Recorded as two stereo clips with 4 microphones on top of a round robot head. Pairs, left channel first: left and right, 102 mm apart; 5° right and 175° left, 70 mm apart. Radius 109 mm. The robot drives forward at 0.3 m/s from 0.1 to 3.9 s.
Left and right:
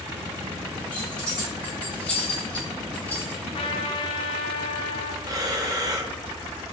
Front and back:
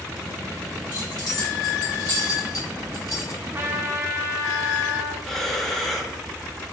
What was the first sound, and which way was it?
Keys jangling, 10° left.